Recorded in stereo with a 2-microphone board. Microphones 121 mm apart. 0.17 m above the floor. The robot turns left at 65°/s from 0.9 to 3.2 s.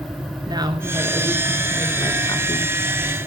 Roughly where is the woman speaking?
Behind right.